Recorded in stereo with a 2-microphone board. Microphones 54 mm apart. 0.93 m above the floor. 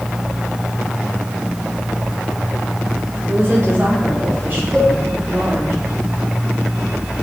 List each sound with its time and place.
3.3 s a woman speaking: 35° right (ahead or behind), 4.5 m; by 5.7 s 30° right (ahead or behind), 7 m
4.7 s a cowbell: 15° right (ahead or behind), 4 m